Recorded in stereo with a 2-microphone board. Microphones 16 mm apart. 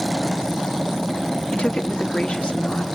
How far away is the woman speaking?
About 1.4 m.